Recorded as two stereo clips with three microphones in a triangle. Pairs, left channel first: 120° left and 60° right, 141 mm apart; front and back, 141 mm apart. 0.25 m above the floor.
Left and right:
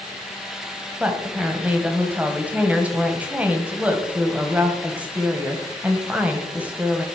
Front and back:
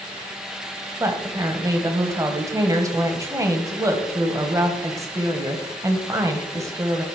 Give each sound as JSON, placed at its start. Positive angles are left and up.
{"t": 1.0, "sound": "a woman speaking", "azimuth_deg": -130, "distance_m": 1.2}